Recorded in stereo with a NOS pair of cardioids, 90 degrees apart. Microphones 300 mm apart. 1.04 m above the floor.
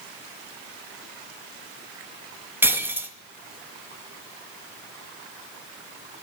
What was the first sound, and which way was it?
Breaking glass, 5° right.